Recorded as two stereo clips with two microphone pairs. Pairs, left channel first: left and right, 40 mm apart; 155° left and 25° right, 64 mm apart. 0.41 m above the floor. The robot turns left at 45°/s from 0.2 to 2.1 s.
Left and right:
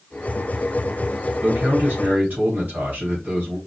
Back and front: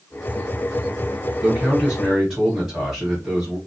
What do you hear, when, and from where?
1.4 s a man speaking: 100° right, 2 m; by 3.6 s 130° right, 2 m